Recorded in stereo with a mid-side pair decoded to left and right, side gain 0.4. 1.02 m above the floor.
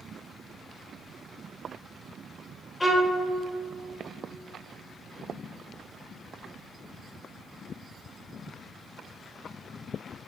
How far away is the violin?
About 1.1 m.